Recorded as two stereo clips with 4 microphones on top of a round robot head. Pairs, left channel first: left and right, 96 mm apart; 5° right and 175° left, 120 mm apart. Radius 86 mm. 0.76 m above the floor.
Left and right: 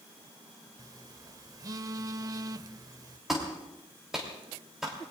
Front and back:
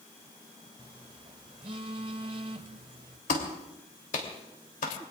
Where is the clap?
5° right, 3 m.